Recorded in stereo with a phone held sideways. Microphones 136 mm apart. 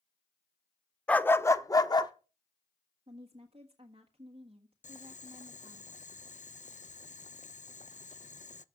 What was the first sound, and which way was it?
A dog barking, 10° left (ahead or behind).